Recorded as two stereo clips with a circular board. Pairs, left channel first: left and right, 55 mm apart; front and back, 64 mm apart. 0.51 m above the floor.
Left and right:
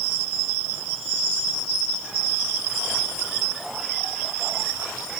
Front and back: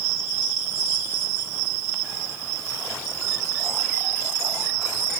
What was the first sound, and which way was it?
Only background noise.